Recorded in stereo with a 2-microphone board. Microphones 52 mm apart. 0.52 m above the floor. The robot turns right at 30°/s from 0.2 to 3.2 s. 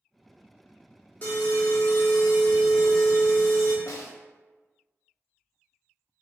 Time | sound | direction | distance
1.2 | an alarm | 70° left | 1.0 m
3.9 | a snare drum | 85° left | 0.7 m